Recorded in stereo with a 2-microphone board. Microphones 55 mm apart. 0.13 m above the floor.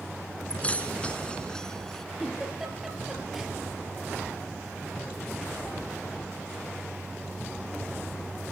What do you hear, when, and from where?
0.5 s keys jangling: 30° left (ahead or behind), 1.2 m; by 2.0 s 10° left (ahead or behind), 1.2 m
2.2 s a giggle: 5° right (ahead or behind), 2.5 m